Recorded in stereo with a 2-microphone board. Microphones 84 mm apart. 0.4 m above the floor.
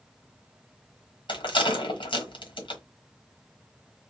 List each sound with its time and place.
1.3 s a rattle: 75° left (ahead or behind), 1.5 m